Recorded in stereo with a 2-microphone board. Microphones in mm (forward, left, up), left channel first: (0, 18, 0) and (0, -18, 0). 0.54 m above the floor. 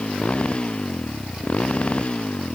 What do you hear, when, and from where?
0.0 s a motorcycle: 35° left (ahead or behind)